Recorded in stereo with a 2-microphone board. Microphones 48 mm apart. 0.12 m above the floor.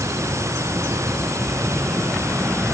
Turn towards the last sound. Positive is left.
turn(degrees=-80)